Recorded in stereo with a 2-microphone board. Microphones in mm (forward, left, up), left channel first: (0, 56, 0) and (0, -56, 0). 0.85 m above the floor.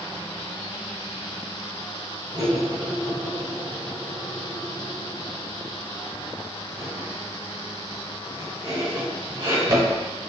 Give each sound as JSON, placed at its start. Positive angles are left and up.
{"t": 2.3, "sound": "cutlery clinking", "side_deg": -50, "distance_m": 1.8}